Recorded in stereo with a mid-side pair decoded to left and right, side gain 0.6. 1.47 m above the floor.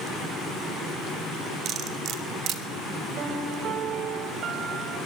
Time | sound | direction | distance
1.6 | cutlery clinking | 60° right | 3 m
3.2 | a piano | 55° right | 5.5 m